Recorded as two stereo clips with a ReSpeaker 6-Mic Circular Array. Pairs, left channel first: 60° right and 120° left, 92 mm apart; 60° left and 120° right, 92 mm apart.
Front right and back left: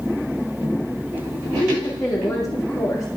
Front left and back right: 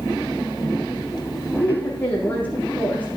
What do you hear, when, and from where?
1.6 s a woman speaking: 10° right, 5.5 m